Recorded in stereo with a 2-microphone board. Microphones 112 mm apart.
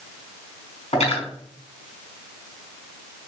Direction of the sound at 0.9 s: 75° left (ahead or behind).